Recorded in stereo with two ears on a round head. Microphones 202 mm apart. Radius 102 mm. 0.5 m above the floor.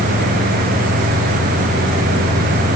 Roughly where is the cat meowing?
I don't hear a cat meowing.